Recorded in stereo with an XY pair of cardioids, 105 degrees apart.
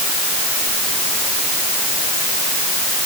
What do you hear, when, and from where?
Only background noise.